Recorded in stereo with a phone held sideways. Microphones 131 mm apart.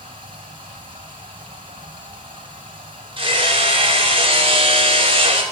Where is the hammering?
40° right (ahead or behind), 2.0 m.